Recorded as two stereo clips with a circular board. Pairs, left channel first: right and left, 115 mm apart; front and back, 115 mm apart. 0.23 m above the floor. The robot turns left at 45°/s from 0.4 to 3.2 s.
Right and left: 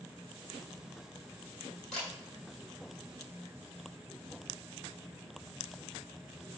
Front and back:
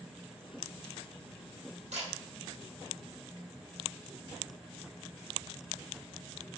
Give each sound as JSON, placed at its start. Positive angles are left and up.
{"t": 1.9, "sound": "a camera shutter", "azimuth_deg": -175, "distance_m": 2.0}